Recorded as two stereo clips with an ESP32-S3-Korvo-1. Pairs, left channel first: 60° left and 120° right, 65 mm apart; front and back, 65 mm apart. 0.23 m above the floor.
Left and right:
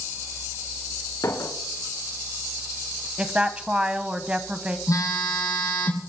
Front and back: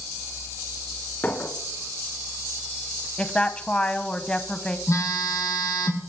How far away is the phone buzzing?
About 3.5 m.